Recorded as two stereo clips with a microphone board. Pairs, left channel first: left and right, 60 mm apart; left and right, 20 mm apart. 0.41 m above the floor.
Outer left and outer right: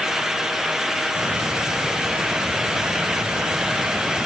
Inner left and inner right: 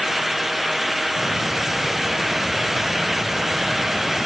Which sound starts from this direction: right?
A hiss, at 1.1 s.